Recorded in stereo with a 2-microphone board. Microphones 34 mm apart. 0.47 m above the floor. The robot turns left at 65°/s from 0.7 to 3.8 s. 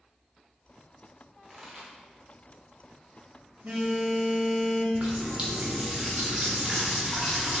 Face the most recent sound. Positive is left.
turn(degrees=-30)  # may be behind; listen again after turning